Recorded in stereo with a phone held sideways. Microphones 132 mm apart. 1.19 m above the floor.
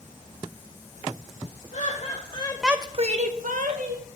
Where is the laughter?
60° left (ahead or behind), 1.4 m; by 4.1 s 75° right (ahead or behind), 2 m.